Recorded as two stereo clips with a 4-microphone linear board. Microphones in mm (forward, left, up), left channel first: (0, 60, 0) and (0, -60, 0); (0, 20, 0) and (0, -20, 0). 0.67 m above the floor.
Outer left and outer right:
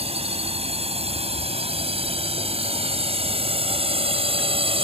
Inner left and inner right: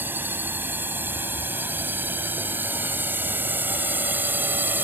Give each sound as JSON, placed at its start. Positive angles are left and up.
{"t": 0.0, "sound": "a drone", "side_deg": -55}